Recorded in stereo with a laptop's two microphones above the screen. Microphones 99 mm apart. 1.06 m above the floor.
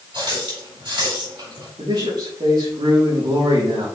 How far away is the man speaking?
About 3 m.